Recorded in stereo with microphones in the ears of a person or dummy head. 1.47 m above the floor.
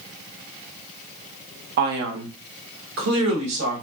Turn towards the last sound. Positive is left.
turn(degrees=-80)